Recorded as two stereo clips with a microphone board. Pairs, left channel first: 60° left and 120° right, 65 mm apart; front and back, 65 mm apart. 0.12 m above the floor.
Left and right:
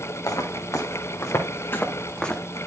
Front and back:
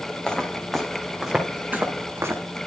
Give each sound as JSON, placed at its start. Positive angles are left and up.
{"t": 0.3, "sound": "footsteps", "azimuth_deg": 80, "distance_m": 3.0}